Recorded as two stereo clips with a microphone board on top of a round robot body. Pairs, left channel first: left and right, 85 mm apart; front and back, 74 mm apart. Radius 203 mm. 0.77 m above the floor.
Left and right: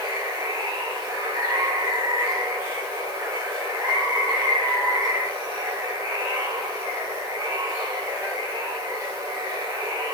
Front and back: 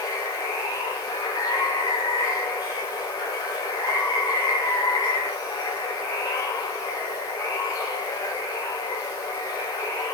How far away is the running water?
About 6.5 m.